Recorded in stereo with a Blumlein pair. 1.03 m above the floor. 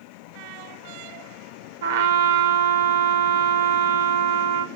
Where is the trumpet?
55° right, 0.8 m.